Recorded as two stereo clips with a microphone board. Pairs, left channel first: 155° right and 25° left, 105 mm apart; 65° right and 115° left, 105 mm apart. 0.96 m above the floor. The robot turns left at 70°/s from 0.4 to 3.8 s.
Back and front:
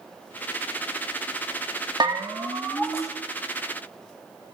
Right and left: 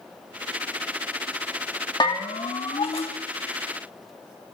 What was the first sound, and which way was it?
A bell, 20° right.